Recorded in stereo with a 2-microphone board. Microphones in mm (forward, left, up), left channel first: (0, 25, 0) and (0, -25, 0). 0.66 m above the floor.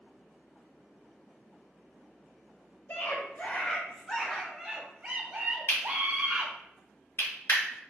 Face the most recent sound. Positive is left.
turn(degrees=70)  # may be behind; listen again after turning